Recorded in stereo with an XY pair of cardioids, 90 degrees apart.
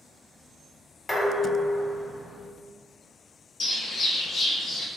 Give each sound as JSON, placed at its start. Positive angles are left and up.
{"t": 1.1, "sound": "dishes clattering", "azimuth_deg": 25, "distance_m": 1.0}
{"t": 3.6, "sound": "a bird", "azimuth_deg": 70, "distance_m": 0.7}